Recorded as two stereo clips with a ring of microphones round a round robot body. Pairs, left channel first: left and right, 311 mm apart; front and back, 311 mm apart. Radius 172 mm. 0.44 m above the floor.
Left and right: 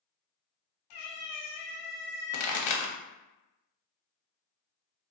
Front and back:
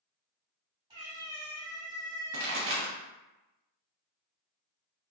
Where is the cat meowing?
100° left, 1.1 m.